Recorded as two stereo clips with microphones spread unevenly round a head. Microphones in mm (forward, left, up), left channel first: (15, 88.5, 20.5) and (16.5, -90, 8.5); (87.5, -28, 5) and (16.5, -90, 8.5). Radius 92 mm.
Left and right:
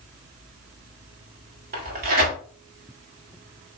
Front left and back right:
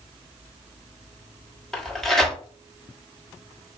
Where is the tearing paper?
45° right, 1.3 m.